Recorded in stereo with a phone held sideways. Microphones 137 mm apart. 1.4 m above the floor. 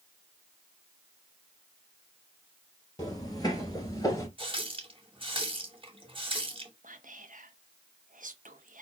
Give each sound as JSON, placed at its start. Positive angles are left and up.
{"t": 3.0, "sound": "footsteps", "side_deg": 30, "distance_m": 1.8}
{"t": 4.4, "sound": "a running tap", "side_deg": -40, "distance_m": 1.1}
{"t": 6.8, "sound": "whispering", "side_deg": -70, "distance_m": 1.0}